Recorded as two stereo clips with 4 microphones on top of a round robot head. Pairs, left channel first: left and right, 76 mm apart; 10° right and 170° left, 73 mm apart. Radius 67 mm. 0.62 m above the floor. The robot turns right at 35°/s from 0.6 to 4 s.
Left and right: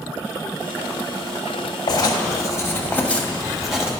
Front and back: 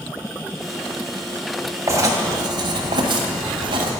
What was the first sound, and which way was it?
Writing, 120° left.